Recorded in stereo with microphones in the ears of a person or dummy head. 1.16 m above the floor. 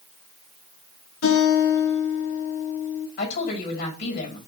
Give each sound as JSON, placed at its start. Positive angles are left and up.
{"t": 1.2, "sound": "a guitar", "side_deg": 80, "distance_m": 3.0}
{"t": 3.2, "sound": "a woman speaking", "side_deg": 55, "distance_m": 5.0}